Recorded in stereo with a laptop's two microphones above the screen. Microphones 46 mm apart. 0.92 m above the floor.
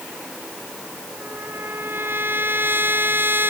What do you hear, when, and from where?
1.2 s a trumpet: 55° right (ahead or behind)